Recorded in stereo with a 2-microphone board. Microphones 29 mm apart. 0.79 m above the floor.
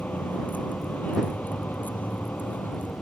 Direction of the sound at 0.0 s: 70° left (ahead or behind).